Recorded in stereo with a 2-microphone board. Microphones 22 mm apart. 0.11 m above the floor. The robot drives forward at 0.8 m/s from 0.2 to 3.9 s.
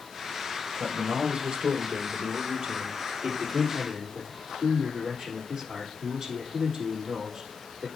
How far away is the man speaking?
About 1.9 m.